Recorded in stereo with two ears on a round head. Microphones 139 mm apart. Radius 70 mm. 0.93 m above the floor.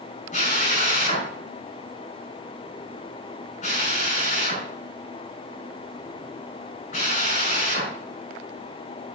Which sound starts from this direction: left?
A drill, at 0.3 s.